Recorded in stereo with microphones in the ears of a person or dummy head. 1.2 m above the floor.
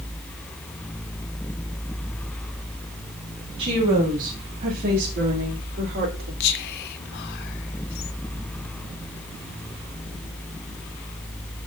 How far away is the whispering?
About 0.8 m.